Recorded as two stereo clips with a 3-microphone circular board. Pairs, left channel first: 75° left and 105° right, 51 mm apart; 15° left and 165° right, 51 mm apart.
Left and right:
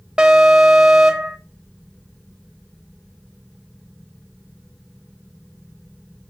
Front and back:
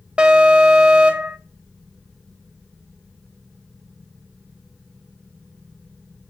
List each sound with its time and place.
0.2 s an alarm: 150° right, 1.1 m